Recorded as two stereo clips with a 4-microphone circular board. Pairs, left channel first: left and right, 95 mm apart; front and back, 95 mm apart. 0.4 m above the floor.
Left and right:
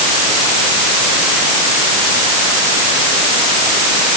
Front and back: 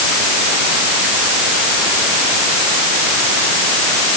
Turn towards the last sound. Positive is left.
No sound to turn to.